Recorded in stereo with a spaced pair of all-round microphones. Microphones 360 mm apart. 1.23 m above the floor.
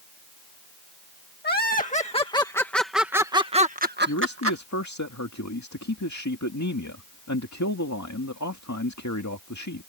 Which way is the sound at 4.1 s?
50° left (ahead or behind).